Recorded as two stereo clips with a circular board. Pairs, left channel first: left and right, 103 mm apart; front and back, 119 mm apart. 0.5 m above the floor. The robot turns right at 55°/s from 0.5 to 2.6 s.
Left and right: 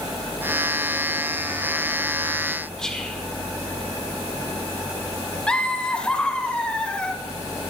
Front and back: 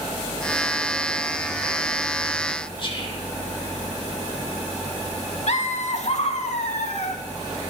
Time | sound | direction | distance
2.8 | whispering | 10° left | 1.7 m
5.5 | laughter | 10° left | 1.5 m